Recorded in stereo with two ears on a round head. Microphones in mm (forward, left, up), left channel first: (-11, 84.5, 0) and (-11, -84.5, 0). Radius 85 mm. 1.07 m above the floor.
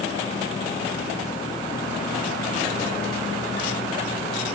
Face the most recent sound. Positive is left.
No sound to turn to.